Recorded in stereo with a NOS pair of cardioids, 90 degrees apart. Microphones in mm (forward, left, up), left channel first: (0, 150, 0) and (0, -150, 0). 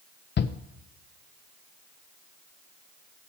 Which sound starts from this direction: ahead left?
A shout, at 0.4 s.